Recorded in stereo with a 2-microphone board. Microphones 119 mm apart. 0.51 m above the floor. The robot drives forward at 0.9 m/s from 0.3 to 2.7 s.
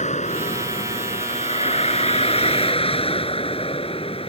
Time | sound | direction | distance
0.0 | a vehicle | 85° left | ?